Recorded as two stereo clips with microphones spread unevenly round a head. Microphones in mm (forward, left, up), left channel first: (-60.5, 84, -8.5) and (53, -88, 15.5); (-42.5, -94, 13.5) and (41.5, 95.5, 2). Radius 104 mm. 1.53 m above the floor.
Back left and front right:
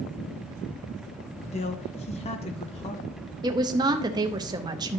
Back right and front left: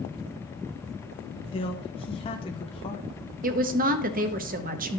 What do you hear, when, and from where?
1.5 s a man speaking: 175° right, 0.6 m
3.4 s a woman speaking: 15° left, 0.8 m